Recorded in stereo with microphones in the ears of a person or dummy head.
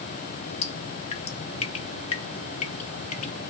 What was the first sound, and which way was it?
Dripping, 35° left (ahead or behind).